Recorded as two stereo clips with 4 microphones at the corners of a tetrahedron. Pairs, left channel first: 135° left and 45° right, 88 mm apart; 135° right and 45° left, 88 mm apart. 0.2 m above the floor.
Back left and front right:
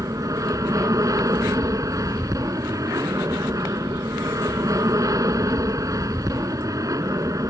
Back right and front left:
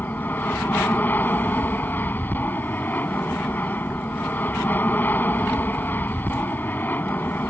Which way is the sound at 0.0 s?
75° right.